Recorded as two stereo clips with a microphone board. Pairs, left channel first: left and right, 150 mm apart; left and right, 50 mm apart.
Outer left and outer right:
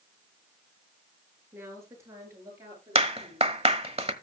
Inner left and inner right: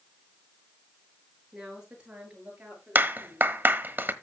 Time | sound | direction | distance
1.5 | a woman speaking | 15° right (ahead or behind) | 7.5 m
3.0 | a clap | 40° right (ahead or behind) | 1.2 m